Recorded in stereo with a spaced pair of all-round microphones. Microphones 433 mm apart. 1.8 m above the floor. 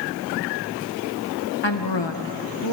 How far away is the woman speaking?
About 1.9 m.